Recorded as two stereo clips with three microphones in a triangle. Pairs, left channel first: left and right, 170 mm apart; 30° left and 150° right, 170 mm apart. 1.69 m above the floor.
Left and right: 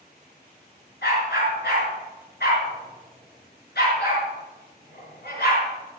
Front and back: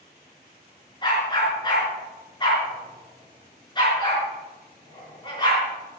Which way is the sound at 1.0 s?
90° left.